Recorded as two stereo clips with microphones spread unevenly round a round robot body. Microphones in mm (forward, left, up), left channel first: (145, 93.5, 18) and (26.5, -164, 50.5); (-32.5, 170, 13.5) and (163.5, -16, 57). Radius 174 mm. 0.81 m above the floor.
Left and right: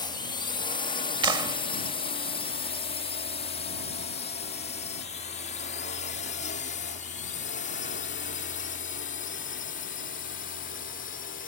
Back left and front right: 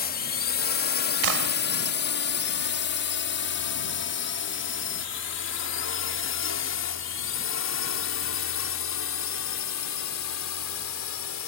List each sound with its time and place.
0.0 s a drone: 130° left; by 11.5 s 125° left
1.2 s a clap: 40° right